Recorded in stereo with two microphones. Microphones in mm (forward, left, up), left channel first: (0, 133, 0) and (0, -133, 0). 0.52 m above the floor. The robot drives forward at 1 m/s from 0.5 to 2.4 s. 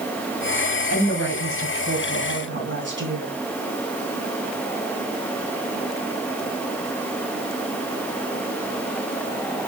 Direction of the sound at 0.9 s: 65° right (ahead or behind).